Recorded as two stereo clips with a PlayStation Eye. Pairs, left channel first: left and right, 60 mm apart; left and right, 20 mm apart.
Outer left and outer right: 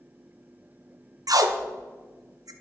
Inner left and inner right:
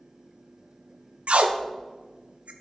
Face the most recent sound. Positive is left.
turn(degrees=-80)